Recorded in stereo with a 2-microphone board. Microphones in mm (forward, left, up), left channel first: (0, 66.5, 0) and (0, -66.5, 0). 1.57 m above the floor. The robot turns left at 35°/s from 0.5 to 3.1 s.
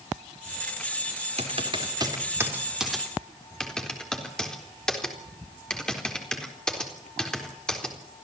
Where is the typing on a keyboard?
55° right (ahead or behind), 4 m; by 8.2 s 5° left (ahead or behind), 4 m.